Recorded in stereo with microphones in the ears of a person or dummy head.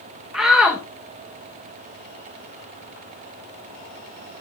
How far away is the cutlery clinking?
No cutlery clinking in this recording.